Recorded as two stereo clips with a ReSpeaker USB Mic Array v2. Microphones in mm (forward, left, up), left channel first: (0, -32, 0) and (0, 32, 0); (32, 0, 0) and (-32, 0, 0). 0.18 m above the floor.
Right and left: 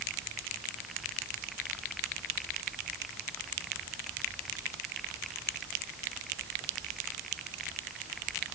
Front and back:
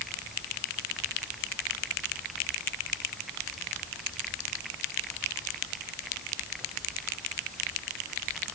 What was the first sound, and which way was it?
Only background noise.